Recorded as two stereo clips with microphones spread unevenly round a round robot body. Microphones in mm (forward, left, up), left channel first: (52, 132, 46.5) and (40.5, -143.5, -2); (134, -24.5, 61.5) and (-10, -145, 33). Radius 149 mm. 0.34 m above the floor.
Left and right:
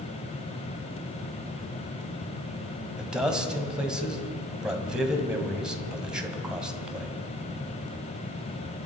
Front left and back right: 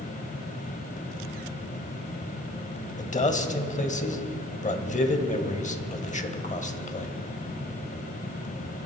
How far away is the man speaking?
About 1.9 m.